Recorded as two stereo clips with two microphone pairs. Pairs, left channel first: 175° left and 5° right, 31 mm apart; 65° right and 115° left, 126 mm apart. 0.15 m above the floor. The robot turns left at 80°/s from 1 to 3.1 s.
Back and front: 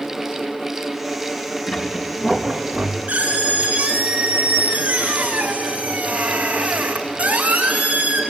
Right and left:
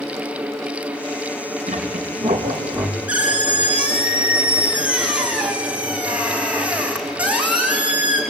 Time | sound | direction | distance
1.7 | a squeak | 150° left | 3.5 m